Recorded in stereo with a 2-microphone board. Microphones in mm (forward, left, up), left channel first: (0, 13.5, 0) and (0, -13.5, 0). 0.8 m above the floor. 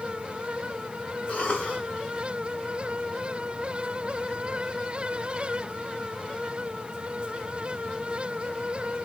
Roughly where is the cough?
Left.